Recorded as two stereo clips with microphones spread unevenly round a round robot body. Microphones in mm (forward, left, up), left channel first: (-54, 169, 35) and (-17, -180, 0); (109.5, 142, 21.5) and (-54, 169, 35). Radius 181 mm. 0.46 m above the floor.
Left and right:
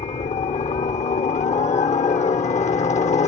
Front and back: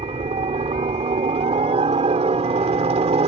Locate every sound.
0.0 s a helicopter: 160° left